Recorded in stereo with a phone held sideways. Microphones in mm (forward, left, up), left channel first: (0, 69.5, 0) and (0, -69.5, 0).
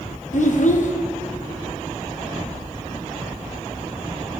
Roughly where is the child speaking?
Left.